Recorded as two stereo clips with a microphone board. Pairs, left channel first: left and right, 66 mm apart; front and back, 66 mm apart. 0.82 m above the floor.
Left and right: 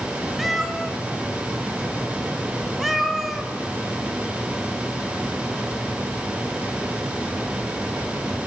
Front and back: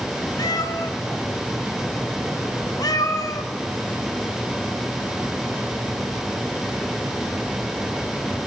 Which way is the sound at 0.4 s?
Straight ahead.